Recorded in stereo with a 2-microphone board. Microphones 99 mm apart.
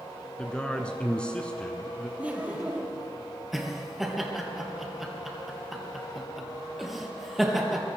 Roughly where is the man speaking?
Centre.